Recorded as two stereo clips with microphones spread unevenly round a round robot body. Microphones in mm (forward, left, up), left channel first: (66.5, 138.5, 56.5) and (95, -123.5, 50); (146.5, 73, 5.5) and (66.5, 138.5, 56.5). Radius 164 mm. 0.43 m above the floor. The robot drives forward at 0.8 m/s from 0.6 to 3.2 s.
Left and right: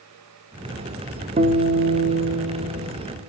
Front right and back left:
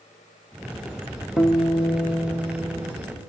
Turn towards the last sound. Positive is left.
turn(degrees=-145)